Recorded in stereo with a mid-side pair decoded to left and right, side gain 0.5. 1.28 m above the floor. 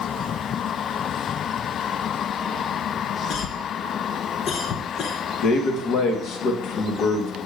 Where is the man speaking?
65° left, 1.2 m.